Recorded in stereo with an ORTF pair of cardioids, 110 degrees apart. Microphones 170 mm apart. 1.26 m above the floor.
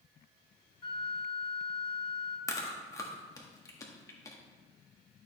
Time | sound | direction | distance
0.8 | a flute | 30° left | 1.1 m
2.5 | chewing | 20° left | 1.7 m